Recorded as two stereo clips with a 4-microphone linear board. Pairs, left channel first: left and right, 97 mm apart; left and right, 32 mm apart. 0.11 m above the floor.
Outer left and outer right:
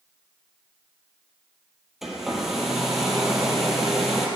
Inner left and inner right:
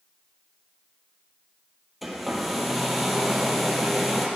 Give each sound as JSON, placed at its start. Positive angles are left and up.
{"t": 2.0, "sound": "a hair dryer", "side_deg": -5, "distance_m": 2.5}